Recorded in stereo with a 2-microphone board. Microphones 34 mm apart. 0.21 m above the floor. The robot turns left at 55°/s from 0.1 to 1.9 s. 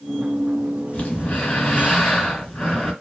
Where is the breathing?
85° left, 2.5 m; by 2.9 s 30° left, 2.5 m.